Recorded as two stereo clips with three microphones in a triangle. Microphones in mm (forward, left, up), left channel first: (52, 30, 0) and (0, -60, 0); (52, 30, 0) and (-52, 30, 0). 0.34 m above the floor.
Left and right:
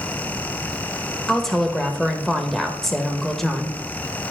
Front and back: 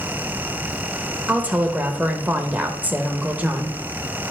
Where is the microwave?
I don't hear a microwave.